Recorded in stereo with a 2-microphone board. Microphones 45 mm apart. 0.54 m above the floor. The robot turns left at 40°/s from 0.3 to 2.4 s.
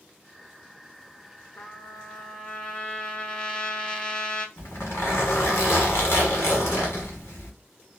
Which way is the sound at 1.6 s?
55° left.